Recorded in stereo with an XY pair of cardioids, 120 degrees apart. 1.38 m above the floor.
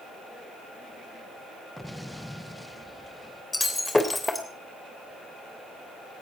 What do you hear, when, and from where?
1.8 s an explosion: 5° left, 0.9 m
3.5 s breaking glass: 10° left, 3 m